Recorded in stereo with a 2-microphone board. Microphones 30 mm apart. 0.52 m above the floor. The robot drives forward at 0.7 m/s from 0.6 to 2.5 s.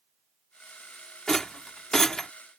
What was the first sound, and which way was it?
A rattle, 15° left (ahead or behind).